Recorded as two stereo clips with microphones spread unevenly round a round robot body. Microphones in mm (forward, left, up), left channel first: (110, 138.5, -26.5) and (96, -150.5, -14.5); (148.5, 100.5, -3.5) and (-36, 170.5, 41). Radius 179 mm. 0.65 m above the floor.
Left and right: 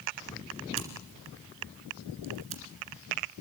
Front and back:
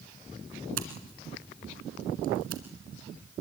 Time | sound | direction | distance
0.8 | scissors | 160° right | 1.7 m